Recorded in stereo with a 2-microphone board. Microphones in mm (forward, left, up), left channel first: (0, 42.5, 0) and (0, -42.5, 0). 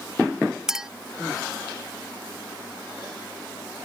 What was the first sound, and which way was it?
A clink, 5° right (ahead or behind).